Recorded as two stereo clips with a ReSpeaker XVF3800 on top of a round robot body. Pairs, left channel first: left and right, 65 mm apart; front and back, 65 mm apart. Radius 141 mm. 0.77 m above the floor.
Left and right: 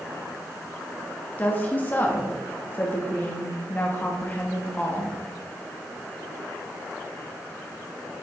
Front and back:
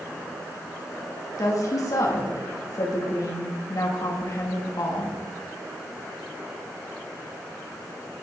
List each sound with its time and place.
1.4 s a woman speaking: 30° left, 1.6 m